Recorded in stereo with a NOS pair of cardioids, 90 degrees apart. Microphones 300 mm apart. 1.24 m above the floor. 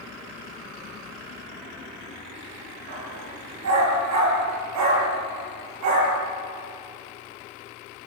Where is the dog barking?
55° right, 5.5 m; by 6.2 s 70° right, 7.5 m.